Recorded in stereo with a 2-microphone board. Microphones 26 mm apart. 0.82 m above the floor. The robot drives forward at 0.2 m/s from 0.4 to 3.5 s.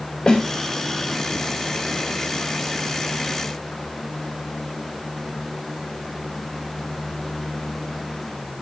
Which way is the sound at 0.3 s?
40° left (ahead or behind).